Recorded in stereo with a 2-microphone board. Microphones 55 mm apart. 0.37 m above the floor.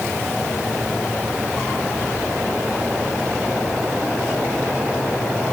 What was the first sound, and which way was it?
Only background noise.